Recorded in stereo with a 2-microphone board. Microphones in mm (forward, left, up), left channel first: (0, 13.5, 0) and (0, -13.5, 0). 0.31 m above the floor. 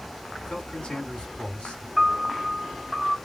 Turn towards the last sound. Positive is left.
turn(degrees=0)  # may be behind; listen again after turning